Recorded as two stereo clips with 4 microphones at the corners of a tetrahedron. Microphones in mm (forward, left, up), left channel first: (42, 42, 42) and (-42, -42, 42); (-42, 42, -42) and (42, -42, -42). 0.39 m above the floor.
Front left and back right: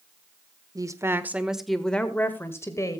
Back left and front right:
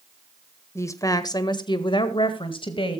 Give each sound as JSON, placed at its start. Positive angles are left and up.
{"t": 0.8, "sound": "a woman speaking", "azimuth_deg": -170, "distance_m": 1.3}